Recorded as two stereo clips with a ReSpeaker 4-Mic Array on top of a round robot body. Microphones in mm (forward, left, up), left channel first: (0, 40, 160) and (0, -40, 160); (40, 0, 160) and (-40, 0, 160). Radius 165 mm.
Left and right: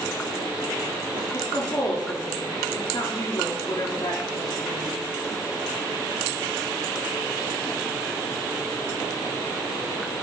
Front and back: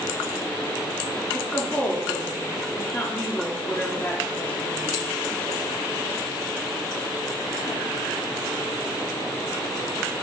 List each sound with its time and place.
1.3 s a woman speaking: 65° left, 2.5 m